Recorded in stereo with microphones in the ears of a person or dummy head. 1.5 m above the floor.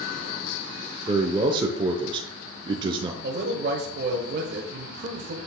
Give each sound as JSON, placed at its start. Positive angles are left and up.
{"t": 1.1, "sound": "a man speaking", "side_deg": -25, "distance_m": 0.8}
{"t": 3.2, "sound": "a man speaking", "side_deg": -60, "distance_m": 1.2}